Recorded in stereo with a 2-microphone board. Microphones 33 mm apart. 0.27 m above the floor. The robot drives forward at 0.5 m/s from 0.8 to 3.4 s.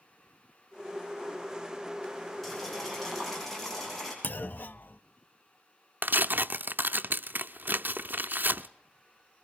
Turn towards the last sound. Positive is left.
turn(degrees=-80)